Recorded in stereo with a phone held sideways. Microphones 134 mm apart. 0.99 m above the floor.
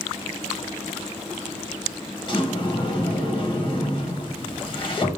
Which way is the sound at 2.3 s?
35° left (ahead or behind).